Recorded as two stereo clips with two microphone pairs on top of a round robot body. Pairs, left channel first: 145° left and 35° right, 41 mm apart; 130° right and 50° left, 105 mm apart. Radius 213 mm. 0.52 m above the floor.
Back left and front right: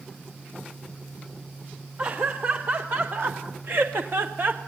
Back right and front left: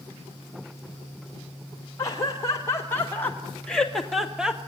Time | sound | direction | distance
2.0 | laughter | 75° right | 3 m